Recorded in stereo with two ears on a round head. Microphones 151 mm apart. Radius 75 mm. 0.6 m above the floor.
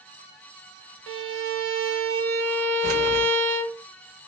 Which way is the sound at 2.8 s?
60° right (ahead or behind).